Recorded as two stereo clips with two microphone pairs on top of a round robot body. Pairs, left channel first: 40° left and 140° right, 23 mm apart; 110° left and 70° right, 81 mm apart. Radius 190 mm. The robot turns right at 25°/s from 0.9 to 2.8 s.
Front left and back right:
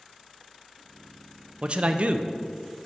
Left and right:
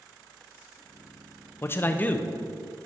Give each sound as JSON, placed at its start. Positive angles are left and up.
{"t": 1.6, "sound": "a man speaking", "azimuth_deg": 170, "distance_m": 0.6}